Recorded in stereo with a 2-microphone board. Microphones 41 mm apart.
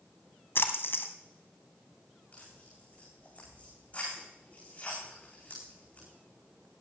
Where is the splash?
65° left (ahead or behind), 1.4 m.